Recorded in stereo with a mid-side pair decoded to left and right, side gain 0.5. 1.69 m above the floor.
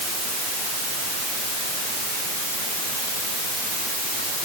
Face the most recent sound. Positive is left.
No sound to turn to.